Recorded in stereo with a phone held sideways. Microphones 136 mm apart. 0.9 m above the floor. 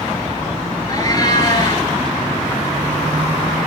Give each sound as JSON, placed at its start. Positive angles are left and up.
{"t": 0.9, "sound": "a cat meowing", "side_deg": 30, "distance_m": 4.5}